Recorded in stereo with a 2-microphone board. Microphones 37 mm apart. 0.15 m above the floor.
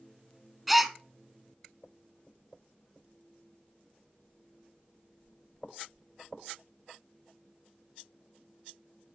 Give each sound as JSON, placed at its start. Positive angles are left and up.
{"t": 0.7, "sound": "a gasp", "side_deg": -5, "distance_m": 0.6}